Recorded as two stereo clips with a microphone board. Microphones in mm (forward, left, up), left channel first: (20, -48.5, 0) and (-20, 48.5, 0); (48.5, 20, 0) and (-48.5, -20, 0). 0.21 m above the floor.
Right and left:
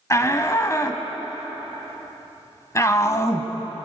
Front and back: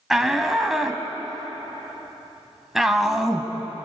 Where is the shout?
75° right, 1.5 m.